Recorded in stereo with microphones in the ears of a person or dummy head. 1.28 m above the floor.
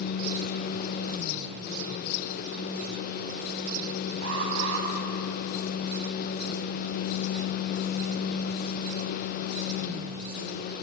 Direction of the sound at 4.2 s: 80° right.